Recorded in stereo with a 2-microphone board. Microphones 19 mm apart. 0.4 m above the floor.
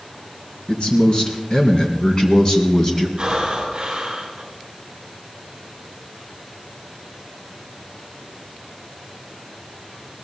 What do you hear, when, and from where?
0.7 s a man speaking: 50° left (ahead or behind), 4 m; by 3.1 s 30° left (ahead or behind), 3 m
3.2 s breathing: 35° right (ahead or behind), 6.5 m